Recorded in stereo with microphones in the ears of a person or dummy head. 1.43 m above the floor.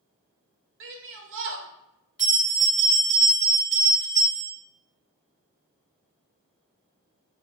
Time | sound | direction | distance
0.8 | a shout | 60° right (ahead or behind) | 0.6 m
2.2 | a bell | 10° left (ahead or behind) | 1.4 m